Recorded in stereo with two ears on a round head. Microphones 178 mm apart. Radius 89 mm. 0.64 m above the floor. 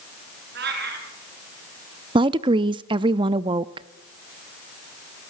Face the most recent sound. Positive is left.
turn(degrees=-25)  # may be behind; listen again after turning